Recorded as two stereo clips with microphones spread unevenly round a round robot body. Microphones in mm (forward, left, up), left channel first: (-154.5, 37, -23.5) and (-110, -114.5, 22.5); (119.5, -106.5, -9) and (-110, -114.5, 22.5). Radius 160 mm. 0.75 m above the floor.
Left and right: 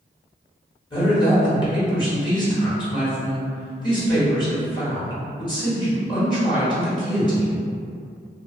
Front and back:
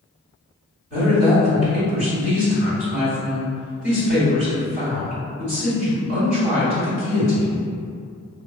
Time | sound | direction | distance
0.9 | a woman speaking | 125° left | 1.3 m